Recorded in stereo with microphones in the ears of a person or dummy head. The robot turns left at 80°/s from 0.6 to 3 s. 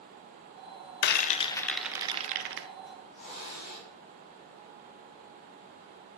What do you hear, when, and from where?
1.0 s a rattle: 60° left (ahead or behind), 0.6 m; by 2.7 s 70° right (ahead or behind), 0.6 m
2.9 s a hiss: 35° left (ahead or behind), 4 m; by 3.9 s 50° left (ahead or behind), 4 m